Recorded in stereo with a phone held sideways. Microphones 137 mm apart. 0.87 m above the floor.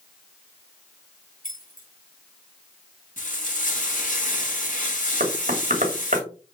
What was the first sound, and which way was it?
Keys jangling, 75° left (ahead or behind).